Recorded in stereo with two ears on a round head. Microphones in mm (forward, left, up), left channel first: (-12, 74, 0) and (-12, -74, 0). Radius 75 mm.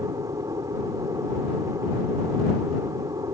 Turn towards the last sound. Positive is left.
turn(degrees=-20)  # may be behind; listen again after turning